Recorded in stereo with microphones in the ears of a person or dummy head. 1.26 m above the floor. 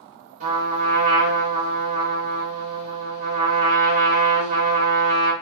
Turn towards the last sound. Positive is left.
turn(degrees=-40)  # may be behind; listen again after turning